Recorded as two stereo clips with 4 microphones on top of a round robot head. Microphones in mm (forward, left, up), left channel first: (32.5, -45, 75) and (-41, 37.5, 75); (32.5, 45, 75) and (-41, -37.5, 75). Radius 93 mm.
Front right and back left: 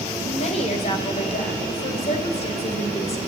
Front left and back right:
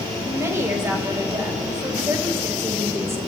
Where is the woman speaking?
65° right, 3 m.